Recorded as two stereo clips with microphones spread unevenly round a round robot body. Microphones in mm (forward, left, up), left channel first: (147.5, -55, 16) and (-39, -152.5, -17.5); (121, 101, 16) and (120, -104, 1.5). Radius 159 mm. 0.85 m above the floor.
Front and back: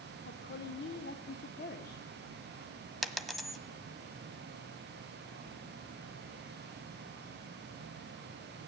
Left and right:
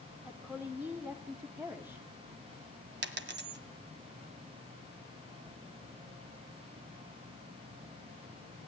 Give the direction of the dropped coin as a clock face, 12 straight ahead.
2 o'clock.